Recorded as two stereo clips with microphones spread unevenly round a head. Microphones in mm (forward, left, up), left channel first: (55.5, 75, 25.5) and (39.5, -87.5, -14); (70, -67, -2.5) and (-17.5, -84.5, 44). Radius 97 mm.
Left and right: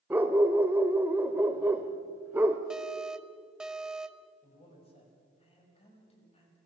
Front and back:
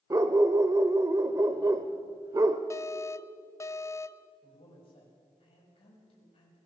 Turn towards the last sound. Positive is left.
turn(degrees=30)